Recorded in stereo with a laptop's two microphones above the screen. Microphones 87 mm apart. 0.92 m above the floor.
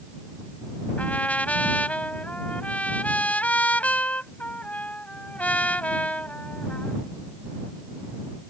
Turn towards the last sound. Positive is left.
turn(degrees=15)  # may be behind; listen again after turning